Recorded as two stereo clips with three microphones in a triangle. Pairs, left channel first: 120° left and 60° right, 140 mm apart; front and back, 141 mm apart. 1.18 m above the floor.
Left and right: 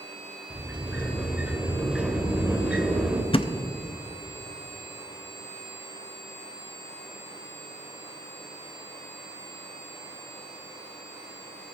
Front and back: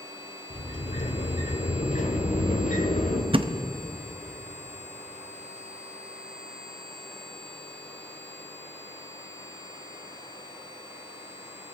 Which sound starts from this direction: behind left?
A thud, at 3.3 s.